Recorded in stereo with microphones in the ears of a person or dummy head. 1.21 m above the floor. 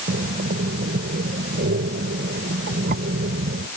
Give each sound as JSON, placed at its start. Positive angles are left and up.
{"t": 0.1, "sound": "breathing", "side_deg": -55}